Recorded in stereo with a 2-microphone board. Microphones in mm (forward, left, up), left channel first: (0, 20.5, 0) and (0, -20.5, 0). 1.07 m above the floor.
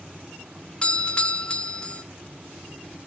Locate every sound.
0.8 s a doorbell: 25° left (ahead or behind), 0.6 m